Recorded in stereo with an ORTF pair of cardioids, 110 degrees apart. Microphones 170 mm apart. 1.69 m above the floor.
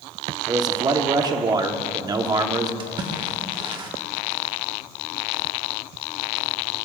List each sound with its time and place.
0.5 s a man speaking: 25° right, 1.2 m
2.8 s a splash: 30° right, 1.5 m